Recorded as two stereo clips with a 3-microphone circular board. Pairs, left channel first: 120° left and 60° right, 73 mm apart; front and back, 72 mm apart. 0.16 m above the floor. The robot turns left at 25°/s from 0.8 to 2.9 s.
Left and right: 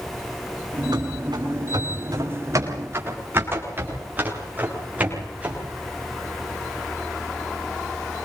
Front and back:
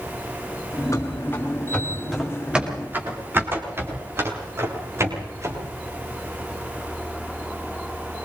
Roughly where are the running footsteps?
Ahead right.